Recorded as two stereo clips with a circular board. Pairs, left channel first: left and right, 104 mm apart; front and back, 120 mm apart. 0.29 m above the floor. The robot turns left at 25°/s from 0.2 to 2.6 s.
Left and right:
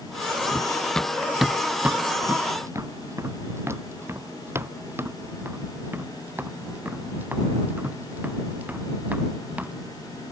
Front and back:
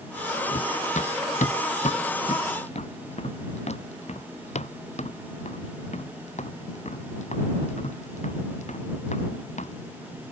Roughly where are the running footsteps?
Ahead.